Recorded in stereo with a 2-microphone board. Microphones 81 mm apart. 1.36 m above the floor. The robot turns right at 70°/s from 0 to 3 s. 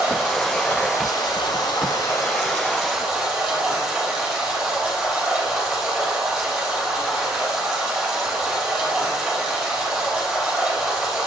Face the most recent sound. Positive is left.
turn(degrees=-175)